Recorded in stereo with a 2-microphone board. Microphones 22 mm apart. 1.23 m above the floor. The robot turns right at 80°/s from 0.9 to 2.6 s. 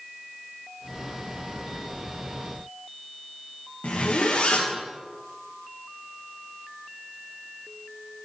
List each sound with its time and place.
3.8 s a zipper: 70° left (ahead or behind), 1.6 m